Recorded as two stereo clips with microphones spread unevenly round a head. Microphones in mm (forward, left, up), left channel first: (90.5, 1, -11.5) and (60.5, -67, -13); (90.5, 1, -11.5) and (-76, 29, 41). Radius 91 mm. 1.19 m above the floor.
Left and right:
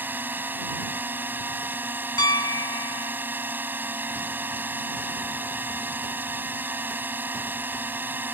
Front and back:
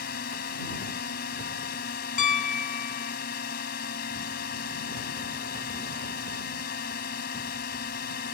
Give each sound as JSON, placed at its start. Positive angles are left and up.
{"t": 0.0, "sound": "a drone", "azimuth_deg": -50}
{"t": 2.2, "sound": "a piano", "azimuth_deg": 40}